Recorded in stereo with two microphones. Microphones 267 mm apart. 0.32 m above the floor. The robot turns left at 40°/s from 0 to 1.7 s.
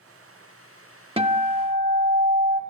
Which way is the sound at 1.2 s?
20° right (ahead or behind).